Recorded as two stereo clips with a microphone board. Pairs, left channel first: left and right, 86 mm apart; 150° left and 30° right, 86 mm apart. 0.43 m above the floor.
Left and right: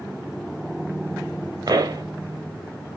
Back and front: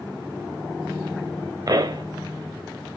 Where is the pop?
60° right, 2.5 m.